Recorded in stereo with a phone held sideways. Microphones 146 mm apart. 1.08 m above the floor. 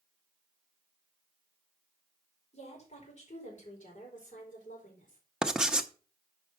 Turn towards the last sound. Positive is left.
turn(degrees=-5)  # may be behind; listen again after turning